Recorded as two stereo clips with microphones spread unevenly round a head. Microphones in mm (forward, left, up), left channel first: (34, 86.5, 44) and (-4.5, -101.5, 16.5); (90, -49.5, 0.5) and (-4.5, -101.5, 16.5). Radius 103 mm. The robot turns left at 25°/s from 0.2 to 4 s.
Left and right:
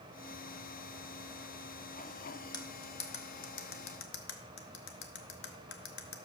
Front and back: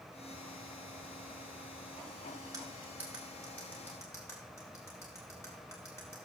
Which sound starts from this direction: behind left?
Cutlery clinking, at 2.5 s.